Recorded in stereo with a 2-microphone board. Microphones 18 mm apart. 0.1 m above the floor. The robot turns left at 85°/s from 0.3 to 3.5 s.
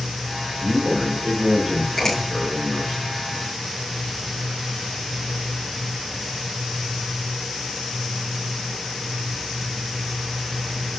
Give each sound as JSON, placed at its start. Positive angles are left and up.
{"t": 0.6, "sound": "a man speaking", "azimuth_deg": -35, "distance_m": 6.0}
{"t": 2.0, "sound": "a finger snap", "side_deg": 15, "distance_m": 5.0}